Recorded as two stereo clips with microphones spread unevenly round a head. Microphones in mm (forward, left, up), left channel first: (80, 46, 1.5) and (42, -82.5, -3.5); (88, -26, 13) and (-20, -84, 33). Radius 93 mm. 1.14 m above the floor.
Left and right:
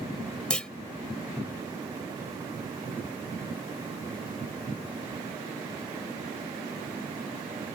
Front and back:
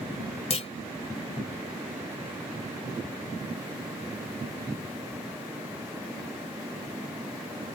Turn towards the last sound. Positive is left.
turn(degrees=-5)